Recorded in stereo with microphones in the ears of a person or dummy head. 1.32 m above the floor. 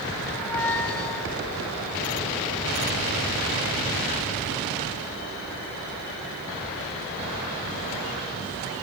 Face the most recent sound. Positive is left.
turn(degrees=10)  # may be behind; listen again after turning